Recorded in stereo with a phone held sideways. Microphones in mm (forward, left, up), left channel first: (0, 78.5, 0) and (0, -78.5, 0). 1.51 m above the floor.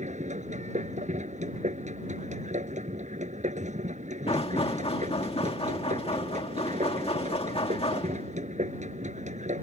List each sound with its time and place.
0.0 s a machine running: 50° right (ahead or behind)
4.3 s knocking: 40° left (ahead or behind)